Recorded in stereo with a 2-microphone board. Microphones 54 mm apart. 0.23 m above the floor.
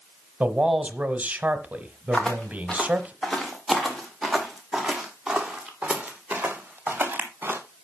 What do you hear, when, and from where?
0.4 s a man speaking: 25° right (ahead or behind), 1.1 m
2.1 s footsteps: 15° left (ahead or behind), 3.5 m; by 7.6 s 35° right (ahead or behind), 3 m